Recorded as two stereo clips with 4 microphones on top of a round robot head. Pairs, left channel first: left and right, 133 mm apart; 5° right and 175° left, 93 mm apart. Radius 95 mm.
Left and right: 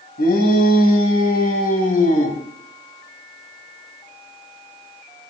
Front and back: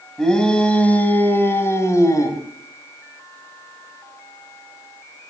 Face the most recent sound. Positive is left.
turn(degrees=50)